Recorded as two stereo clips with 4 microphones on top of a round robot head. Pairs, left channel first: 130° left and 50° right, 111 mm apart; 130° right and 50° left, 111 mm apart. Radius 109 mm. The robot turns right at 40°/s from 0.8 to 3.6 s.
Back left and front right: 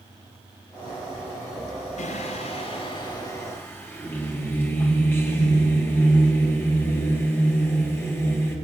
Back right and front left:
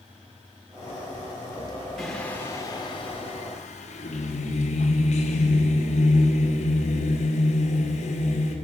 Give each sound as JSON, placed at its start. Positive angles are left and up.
{"t": 2.0, "sound": "singing", "azimuth_deg": 140, "distance_m": 3.0}